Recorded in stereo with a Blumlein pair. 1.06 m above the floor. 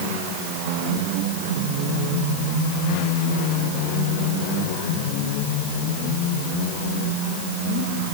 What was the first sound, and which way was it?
Only background noise.